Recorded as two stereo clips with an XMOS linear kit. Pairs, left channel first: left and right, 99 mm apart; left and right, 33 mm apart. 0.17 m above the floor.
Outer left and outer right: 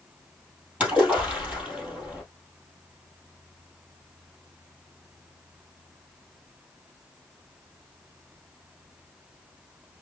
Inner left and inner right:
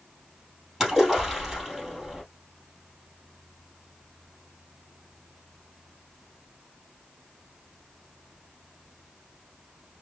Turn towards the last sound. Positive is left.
turn(degrees=-10)  # may be behind; listen again after turning